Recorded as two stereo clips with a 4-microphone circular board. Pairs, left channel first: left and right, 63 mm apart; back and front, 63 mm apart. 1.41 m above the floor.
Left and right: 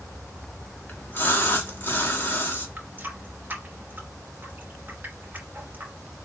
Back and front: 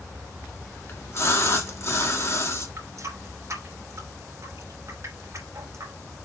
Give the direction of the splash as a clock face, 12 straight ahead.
7 o'clock.